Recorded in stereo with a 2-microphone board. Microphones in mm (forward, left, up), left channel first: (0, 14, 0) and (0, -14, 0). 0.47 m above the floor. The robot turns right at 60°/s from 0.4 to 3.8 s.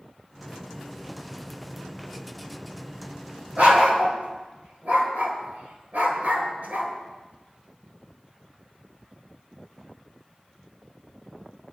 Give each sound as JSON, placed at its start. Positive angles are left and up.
{"t": 3.6, "sound": "a dog barking", "side_deg": -55, "distance_m": 3.5}